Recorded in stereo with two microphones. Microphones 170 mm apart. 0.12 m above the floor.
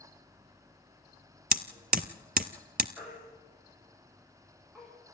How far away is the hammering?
About 0.7 m.